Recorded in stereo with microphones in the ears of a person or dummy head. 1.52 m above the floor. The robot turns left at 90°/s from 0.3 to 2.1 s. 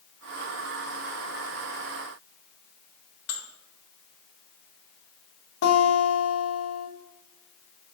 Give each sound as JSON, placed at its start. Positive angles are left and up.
{"t": 3.3, "sound": "dishes clattering", "side_deg": 60, "distance_m": 1.3}
{"t": 5.6, "sound": "a guitar", "side_deg": 80, "distance_m": 1.7}